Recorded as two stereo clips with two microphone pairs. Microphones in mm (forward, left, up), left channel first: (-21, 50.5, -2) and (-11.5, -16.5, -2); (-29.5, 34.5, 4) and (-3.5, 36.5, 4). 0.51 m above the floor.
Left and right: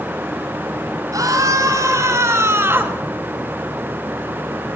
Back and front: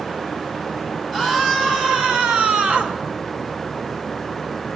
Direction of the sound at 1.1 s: 60° right.